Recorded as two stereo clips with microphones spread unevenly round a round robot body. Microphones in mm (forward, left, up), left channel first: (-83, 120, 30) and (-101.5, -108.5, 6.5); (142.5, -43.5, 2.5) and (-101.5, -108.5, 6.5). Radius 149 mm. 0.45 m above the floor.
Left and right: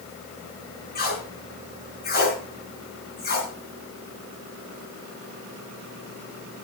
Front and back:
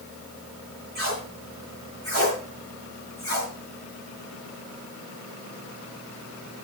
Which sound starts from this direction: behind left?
Tape being pulled, at 0.9 s.